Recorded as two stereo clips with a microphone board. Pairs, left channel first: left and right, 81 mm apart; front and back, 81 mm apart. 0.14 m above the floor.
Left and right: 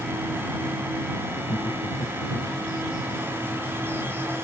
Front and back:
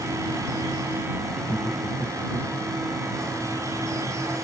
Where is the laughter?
80° left.